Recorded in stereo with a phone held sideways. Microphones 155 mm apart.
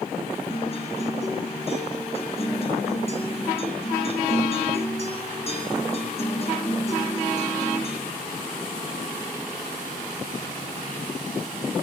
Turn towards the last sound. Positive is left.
turn(degrees=40)  # may be behind; listen again after turning